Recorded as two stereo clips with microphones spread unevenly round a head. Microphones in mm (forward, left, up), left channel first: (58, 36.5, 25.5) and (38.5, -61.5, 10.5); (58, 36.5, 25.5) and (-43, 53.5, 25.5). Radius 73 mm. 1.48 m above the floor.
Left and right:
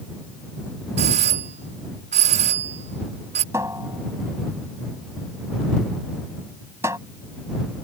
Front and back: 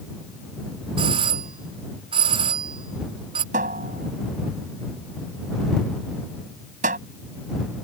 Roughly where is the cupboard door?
Behind.